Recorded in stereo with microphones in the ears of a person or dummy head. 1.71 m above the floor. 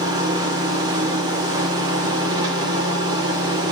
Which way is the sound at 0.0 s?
25° right (ahead or behind).